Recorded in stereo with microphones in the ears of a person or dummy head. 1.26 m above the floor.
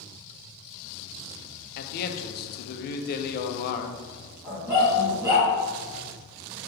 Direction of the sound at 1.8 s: 55° left (ahead or behind).